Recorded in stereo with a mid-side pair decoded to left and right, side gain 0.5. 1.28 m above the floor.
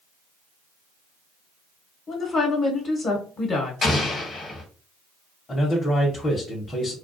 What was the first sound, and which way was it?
A woman speaking, 50° left.